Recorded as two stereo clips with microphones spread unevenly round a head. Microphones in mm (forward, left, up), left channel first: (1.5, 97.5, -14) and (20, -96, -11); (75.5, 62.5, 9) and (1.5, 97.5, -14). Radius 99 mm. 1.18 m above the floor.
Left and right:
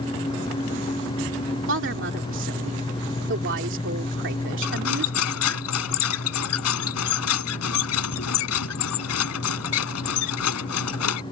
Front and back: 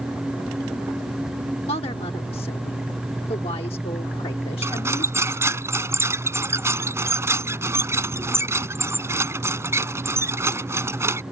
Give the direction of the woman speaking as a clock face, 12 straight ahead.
2 o'clock.